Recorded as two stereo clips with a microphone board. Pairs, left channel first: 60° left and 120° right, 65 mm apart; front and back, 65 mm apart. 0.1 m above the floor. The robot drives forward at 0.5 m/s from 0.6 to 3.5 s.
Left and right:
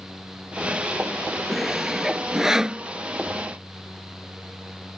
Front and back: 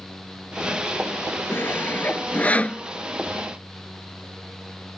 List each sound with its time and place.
1.5 s sawing: 30° right; by 2.8 s 55° right